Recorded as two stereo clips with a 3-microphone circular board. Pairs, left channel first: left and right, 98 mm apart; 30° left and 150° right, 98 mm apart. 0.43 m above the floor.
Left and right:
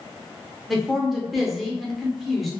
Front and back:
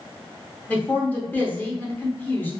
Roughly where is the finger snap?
I don't hear a finger snap.